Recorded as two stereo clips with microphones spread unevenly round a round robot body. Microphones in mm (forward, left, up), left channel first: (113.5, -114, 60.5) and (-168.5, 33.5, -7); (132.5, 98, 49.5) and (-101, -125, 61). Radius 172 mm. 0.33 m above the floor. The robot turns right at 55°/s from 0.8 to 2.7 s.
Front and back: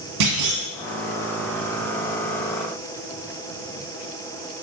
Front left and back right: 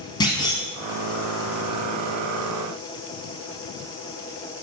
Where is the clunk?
120° left, 1.2 m.